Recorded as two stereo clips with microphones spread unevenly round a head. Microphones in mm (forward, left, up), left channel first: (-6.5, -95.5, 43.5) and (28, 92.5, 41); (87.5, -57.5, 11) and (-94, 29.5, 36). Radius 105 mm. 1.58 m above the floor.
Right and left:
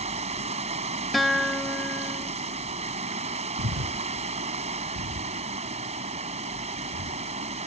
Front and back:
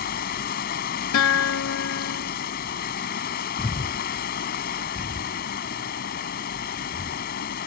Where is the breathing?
55° left.